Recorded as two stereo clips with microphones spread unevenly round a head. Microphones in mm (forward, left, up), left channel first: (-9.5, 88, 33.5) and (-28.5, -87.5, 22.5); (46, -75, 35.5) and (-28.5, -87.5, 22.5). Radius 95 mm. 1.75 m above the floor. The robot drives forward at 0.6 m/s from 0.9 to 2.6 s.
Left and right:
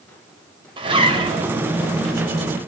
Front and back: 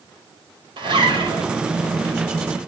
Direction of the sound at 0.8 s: 160° right.